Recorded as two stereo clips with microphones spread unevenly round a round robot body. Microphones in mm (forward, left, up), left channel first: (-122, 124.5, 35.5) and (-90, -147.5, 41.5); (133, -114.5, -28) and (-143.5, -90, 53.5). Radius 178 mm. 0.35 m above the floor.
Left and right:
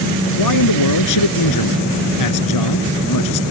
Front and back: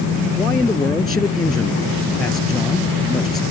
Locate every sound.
0.4 s a man speaking: 80° left